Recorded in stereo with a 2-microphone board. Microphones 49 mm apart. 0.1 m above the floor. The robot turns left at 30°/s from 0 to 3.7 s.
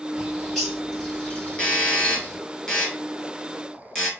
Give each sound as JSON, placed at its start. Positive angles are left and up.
{"t": 0.2, "sound": "a bird", "side_deg": -10, "distance_m": 2.5}
{"t": 1.6, "sound": "a doorbell", "side_deg": 20, "distance_m": 1.6}